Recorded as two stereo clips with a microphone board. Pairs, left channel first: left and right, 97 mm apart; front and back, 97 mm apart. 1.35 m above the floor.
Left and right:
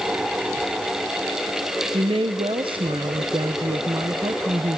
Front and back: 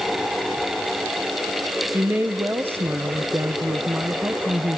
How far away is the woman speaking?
About 0.9 m.